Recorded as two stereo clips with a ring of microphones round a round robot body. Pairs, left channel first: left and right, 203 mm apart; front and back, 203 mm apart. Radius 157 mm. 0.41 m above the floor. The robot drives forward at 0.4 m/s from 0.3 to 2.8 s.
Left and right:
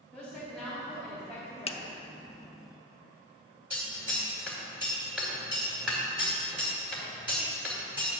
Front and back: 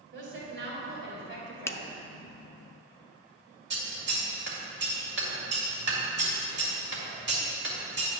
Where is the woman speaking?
Straight behind, 2.5 m.